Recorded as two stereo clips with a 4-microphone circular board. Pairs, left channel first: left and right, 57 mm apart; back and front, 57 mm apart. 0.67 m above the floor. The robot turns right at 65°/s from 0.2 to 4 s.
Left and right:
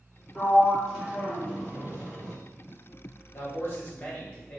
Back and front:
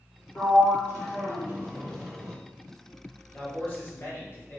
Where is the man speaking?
105° left, 1.0 m; by 4.6 s 150° left, 1.0 m.